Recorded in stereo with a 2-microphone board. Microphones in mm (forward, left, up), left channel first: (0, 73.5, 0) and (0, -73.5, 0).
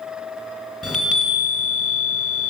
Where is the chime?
5° right (ahead or behind), 2.5 m.